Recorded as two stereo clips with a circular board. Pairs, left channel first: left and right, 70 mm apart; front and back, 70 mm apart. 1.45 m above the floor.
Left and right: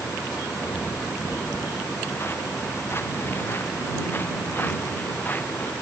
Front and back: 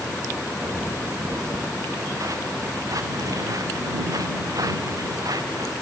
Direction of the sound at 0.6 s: 140° left.